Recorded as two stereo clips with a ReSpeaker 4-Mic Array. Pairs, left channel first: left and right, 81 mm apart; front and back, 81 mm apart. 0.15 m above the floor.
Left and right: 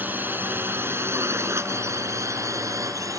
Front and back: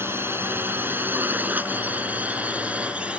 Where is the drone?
140° right; by 3.2 s 110° right.